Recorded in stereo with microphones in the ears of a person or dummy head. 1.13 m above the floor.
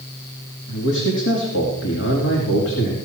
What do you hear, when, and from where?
0.7 s a man speaking: 70° left (ahead or behind), 3 m